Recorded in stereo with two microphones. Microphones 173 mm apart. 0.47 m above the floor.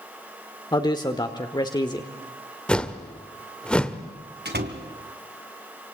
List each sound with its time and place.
0.7 s a man speaking: 25° left (ahead or behind), 1.2 m
2.7 s a whoosh: 5° left (ahead or behind), 1.3 m
4.5 s a door slam: 75° right (ahead or behind), 2.5 m